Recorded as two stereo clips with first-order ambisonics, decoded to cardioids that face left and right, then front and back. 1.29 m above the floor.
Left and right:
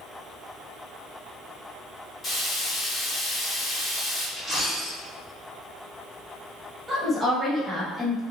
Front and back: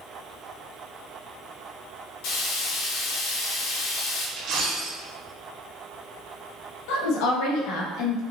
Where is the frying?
10° left, 1.5 m.